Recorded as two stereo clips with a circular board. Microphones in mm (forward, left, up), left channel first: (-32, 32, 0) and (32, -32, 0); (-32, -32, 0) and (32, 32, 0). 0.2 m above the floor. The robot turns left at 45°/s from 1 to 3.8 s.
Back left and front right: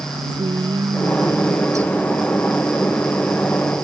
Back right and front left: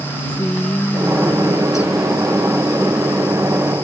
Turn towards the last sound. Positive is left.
turn(degrees=180)